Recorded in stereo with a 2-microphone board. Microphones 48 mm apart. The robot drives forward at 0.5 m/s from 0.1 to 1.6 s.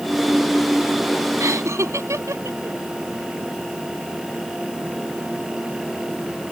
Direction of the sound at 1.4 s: 85° right.